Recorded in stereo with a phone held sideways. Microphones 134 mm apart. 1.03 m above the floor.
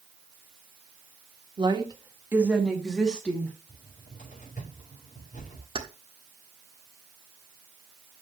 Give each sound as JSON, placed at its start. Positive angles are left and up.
{"t": 1.6, "sound": "a woman speaking", "side_deg": -35, "distance_m": 1.7}
{"t": 3.7, "sound": "a cupboard door", "side_deg": 75, "distance_m": 5.5}
{"t": 5.8, "sound": "keys jangling", "side_deg": -40, "distance_m": 1.4}